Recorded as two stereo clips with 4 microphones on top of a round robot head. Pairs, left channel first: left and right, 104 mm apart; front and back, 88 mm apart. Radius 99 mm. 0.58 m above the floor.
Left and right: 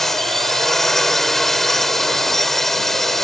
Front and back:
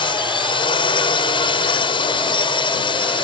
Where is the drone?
5° left.